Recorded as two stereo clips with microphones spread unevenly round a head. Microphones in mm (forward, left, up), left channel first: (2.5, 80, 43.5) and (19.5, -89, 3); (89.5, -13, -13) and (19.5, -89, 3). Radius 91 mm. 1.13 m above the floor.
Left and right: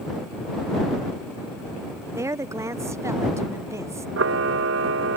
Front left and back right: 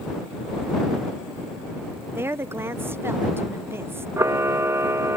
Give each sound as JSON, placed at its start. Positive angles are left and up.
{"t": 2.1, "sound": "a woman speaking", "azimuth_deg": -70}
{"t": 4.2, "sound": "a camera shutter", "azimuth_deg": -85}